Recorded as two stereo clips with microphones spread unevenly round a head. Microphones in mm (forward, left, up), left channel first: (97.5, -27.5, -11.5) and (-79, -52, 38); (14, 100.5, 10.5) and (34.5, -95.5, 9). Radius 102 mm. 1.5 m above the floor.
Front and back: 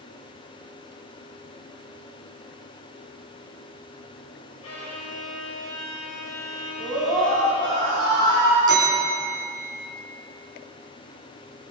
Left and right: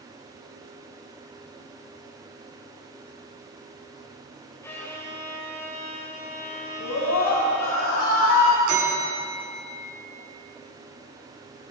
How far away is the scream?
About 9 m.